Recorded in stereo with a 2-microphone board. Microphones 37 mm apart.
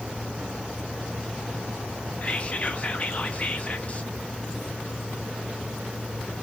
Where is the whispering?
35° left (ahead or behind), 0.5 m.